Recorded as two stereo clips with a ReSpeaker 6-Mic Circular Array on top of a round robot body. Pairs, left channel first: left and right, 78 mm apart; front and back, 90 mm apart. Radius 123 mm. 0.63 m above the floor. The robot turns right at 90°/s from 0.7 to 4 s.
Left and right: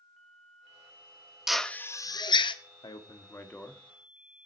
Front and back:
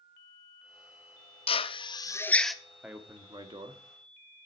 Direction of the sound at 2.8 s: 100° left.